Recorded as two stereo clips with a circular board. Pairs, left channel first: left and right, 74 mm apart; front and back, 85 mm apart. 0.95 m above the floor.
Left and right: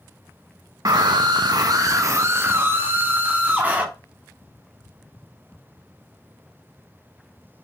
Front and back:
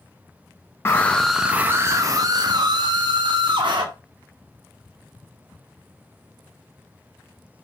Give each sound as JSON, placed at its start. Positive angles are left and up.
{"t": 0.8, "sound": "a scream", "azimuth_deg": -60, "distance_m": 0.6}